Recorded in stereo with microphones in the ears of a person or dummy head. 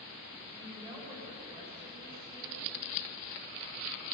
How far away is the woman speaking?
About 8 m.